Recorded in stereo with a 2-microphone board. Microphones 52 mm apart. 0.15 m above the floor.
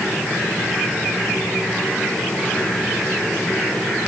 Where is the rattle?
No rattle in this recording.